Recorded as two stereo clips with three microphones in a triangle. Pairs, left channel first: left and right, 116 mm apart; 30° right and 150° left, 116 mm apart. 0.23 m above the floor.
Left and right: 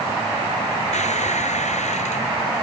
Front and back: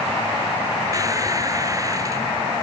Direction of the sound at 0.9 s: 90° left.